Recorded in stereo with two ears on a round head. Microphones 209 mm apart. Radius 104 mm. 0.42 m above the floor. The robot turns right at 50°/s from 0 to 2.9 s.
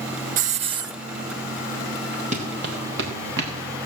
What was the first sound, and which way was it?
A hiss, 35° right (ahead or behind).